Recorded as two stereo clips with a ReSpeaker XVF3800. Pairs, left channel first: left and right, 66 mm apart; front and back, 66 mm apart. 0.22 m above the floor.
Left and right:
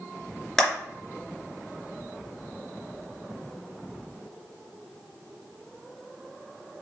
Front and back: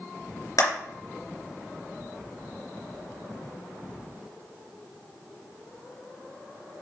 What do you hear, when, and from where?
0.6 s a clap: 10° left, 3 m